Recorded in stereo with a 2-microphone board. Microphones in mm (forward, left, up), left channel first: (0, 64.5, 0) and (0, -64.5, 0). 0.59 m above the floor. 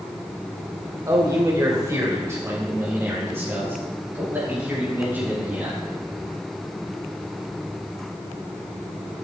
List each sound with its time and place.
1.1 s a man speaking: 30° right (ahead or behind), 2 m; by 5.8 s 15° right (ahead or behind), 5 m